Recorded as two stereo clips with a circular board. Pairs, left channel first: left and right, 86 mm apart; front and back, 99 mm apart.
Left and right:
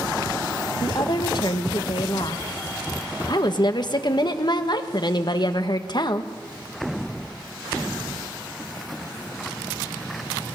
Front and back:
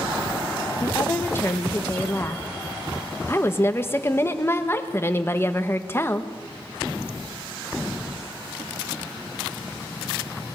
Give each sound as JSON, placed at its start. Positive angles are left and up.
{"t": 0.8, "sound": "a woman speaking", "azimuth_deg": 65, "distance_m": 1.5}